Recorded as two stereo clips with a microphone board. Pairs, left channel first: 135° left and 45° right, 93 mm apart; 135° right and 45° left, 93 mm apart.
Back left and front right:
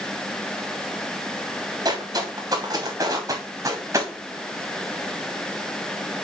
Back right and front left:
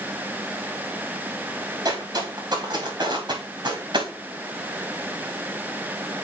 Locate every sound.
1.9 s footsteps: straight ahead, 4.5 m; by 4.1 s 10° left, 3.5 m